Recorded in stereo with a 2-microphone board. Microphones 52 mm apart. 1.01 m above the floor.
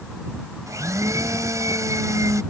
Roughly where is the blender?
Right.